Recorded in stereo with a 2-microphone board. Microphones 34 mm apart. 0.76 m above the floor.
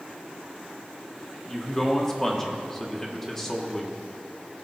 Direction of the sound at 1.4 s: 10° left (ahead or behind).